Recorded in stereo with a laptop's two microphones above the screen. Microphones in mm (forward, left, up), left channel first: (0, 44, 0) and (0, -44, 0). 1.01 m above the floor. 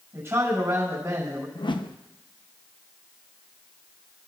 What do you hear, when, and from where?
0.1 s a man speaking: 30° right (ahead or behind), 6.5 m
1.6 s a whoosh: 60° left (ahead or behind), 0.6 m